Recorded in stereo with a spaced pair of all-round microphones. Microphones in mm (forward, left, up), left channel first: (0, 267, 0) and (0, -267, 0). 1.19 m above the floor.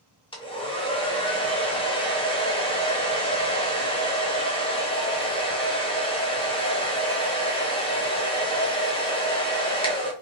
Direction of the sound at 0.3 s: 10° left (ahead or behind).